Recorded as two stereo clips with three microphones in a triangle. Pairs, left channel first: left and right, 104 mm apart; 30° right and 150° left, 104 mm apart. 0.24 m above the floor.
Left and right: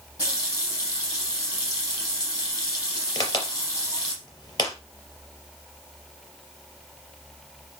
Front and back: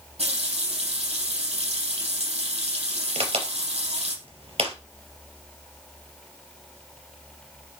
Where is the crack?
140° left, 3.5 m.